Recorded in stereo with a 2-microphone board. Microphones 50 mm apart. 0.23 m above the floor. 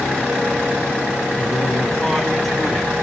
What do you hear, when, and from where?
1.4 s a man speaking: centre (ahead or behind), 3 m; by 2.9 s 5° left (ahead or behind), 1.7 m